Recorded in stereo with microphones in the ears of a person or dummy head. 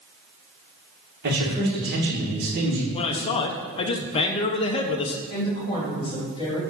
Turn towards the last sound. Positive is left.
turn(degrees=25)  # may be behind; listen again after turning